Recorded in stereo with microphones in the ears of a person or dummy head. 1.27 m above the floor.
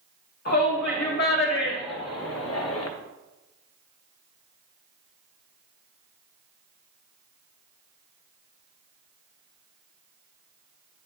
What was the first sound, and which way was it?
A shout, 55° left (ahead or behind).